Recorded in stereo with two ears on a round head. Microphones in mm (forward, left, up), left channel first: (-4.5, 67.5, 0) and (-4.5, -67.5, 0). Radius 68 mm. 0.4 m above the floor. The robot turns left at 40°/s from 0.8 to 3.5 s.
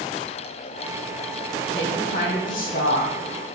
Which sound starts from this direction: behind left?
A woman speaking, at 1.7 s.